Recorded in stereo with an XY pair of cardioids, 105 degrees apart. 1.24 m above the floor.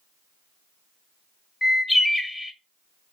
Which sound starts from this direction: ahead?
A bird, at 1.6 s.